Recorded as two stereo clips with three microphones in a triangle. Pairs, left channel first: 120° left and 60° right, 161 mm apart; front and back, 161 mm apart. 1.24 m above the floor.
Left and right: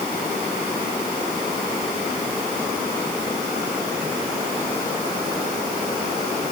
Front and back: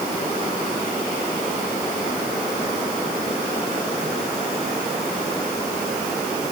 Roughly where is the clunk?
No clunk in this recording.